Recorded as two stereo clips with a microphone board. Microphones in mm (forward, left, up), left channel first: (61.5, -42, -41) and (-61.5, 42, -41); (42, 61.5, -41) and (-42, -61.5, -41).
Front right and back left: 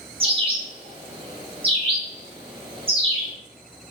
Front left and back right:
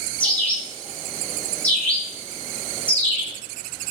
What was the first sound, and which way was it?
A bird, 130° left.